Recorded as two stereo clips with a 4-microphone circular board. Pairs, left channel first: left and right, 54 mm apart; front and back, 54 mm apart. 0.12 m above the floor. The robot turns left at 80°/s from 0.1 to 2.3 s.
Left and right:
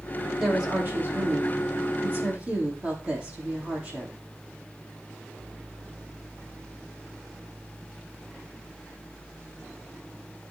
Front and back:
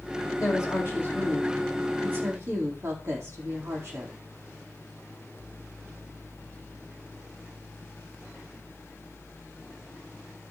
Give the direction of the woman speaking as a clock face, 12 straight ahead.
12 o'clock.